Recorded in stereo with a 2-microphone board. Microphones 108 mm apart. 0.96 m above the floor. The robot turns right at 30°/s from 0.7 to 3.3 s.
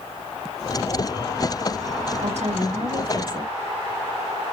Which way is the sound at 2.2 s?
80° right.